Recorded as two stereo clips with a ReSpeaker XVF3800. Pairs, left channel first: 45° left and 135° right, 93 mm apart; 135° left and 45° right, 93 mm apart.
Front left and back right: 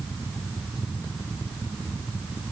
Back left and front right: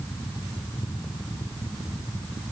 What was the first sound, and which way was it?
Only background noise.